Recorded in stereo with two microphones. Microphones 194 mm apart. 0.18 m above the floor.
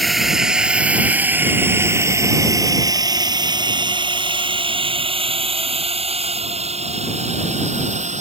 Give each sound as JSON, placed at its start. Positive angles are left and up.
{"t": 0.0, "sound": "a drone", "side_deg": 0}